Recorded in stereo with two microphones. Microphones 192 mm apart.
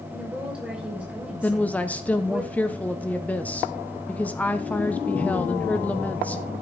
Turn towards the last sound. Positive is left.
turn(degrees=5)  # may be behind; listen again after turning